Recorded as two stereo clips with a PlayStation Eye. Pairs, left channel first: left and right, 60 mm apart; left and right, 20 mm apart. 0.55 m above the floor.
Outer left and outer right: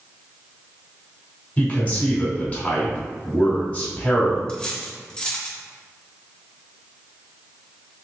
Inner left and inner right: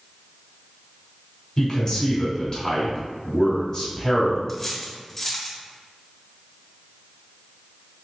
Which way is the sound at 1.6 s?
35° left (ahead or behind).